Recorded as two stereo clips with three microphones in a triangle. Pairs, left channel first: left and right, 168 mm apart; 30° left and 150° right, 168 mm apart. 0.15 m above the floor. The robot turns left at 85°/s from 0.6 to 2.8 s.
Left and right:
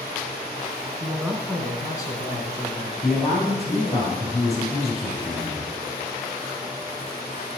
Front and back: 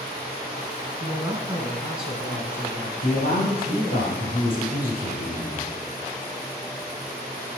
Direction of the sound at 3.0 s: Straight ahead.